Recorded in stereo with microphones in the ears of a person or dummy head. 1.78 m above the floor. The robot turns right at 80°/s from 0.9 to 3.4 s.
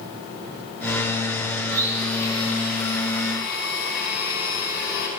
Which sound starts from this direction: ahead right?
A blender, at 1.7 s.